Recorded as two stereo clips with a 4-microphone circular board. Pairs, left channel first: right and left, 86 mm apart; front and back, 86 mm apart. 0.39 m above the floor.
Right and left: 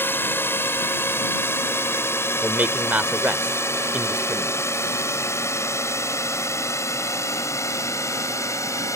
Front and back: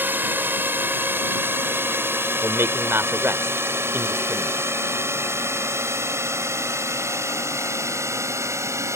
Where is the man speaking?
150° left.